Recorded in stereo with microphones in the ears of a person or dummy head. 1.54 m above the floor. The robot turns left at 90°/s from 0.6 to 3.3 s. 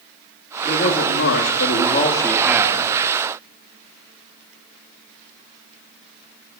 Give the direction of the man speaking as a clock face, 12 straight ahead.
7 o'clock.